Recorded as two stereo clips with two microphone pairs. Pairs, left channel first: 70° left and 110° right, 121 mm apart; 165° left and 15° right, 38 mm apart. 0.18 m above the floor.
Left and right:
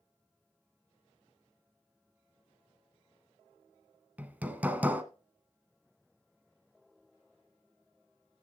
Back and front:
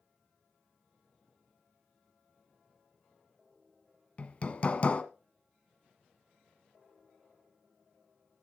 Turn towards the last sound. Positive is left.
turn(degrees=180)